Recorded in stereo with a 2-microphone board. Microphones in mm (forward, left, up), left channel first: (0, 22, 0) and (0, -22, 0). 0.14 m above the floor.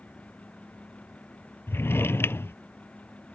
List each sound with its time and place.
1.7 s a drawer: 65° left (ahead or behind)